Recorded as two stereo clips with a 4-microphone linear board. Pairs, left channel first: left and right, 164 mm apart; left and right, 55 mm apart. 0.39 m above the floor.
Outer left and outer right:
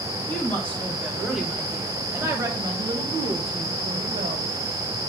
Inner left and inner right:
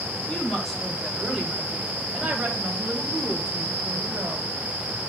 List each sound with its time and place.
0.3 s a woman speaking: 10° left (ahead or behind), 2.5 m; by 4.5 s 55° right (ahead or behind), 2.5 m